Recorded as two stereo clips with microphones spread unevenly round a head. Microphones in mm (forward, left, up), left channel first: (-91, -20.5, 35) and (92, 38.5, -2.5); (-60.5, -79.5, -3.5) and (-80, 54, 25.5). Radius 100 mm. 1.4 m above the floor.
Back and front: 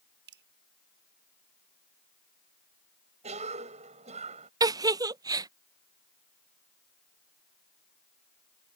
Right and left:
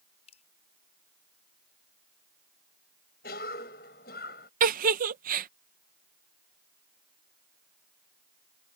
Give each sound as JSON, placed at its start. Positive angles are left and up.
{"t": 0.3, "sound": "dripping", "azimuth_deg": -20}
{"t": 3.2, "sound": "a cough", "azimuth_deg": -40}
{"t": 4.6, "sound": "a giggle", "azimuth_deg": 95}